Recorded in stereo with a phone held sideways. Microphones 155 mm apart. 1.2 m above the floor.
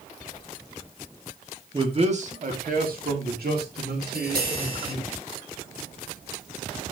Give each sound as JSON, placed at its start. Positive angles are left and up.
{"t": 1.7, "sound": "a man speaking", "side_deg": -30, "distance_m": 2.0}
{"t": 4.0, "sound": "tapping", "side_deg": -80, "distance_m": 8.0}